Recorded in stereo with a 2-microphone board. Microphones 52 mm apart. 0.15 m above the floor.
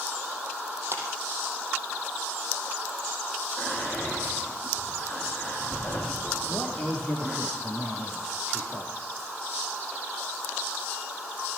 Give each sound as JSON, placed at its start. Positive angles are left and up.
{"t": 0.9, "sound": "a clap", "side_deg": -50, "distance_m": 4.0}
{"t": 3.6, "sound": "whispering", "side_deg": 35, "distance_m": 6.5}
{"t": 6.5, "sound": "a man speaking", "side_deg": 15, "distance_m": 5.5}